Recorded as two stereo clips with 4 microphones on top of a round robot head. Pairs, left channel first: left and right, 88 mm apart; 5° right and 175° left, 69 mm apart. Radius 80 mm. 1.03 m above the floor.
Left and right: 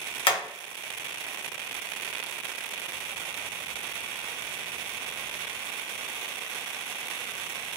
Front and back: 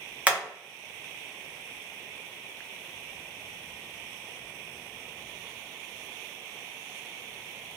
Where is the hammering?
105° left, 1.2 m.